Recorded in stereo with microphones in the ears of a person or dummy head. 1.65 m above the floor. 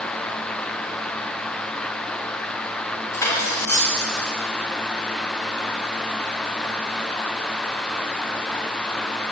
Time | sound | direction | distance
3.1 | cutlery clinking | 20° left (ahead or behind) | 4.5 m